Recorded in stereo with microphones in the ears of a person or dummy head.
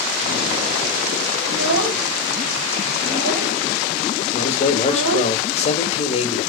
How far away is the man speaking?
About 1.7 m.